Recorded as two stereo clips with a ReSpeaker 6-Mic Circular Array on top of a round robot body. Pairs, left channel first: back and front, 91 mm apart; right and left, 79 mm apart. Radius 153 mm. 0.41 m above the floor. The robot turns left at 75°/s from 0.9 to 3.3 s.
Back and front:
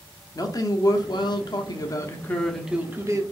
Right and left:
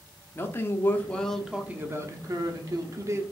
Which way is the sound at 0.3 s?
145° right.